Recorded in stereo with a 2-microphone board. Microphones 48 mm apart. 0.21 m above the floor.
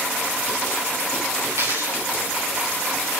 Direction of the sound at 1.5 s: 80° right.